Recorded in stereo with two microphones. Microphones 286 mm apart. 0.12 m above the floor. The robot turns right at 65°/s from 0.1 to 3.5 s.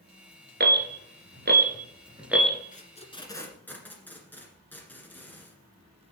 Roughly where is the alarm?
Right.